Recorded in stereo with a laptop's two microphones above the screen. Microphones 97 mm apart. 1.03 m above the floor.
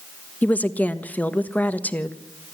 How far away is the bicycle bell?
No bicycle bell in this recording.